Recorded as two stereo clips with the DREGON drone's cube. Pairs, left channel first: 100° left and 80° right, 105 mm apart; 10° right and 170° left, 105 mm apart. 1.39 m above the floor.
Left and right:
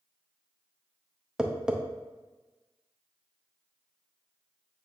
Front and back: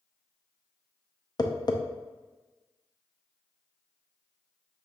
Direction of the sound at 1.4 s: Straight ahead.